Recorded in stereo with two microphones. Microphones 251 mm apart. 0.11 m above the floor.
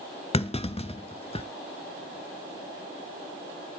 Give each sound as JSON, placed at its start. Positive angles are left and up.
{"t": 0.3, "sound": "a clunk", "side_deg": 25, "distance_m": 0.6}